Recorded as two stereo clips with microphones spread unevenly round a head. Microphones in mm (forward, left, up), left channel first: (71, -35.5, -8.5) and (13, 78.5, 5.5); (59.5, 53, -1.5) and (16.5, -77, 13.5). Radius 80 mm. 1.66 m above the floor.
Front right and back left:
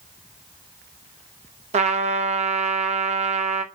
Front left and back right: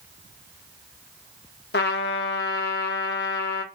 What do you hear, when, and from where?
1.7 s a trumpet: 85° left, 0.7 m